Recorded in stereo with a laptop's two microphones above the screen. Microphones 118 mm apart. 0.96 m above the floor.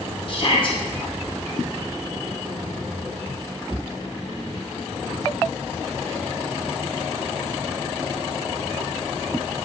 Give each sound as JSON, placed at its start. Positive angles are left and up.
{"t": 0.3, "sound": "a shout", "side_deg": 45, "distance_m": 1.3}